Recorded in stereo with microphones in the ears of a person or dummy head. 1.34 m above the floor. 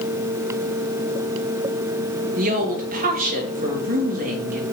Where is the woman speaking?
45° right (ahead or behind), 2 m.